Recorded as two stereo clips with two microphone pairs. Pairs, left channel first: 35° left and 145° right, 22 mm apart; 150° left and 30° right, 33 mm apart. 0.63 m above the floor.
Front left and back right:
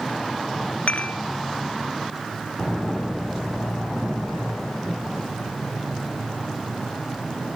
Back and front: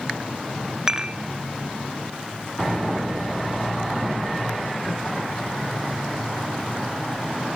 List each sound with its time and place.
0.9 s dishes clattering: 40° left, 1.7 m